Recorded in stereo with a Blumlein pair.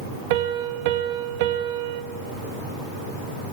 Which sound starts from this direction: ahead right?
A piano, at 0.3 s.